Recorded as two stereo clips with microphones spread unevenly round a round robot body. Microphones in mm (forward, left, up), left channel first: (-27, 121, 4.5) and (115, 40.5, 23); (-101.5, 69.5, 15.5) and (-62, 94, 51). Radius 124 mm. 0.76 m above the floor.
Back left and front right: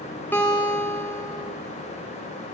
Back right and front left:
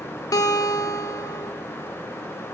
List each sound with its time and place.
0.3 s a guitar: 125° right, 0.6 m